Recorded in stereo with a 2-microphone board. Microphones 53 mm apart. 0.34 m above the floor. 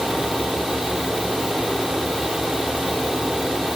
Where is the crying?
I don't hear crying.